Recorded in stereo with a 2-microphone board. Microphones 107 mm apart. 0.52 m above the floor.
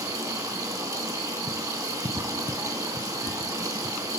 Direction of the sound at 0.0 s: 35° right (ahead or behind).